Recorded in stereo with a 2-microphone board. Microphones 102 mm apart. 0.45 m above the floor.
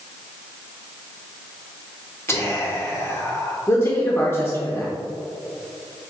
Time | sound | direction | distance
2.3 | whispering | 25° left (ahead or behind) | 0.8 m
3.7 | a man speaking | 25° left (ahead or behind) | 0.8 m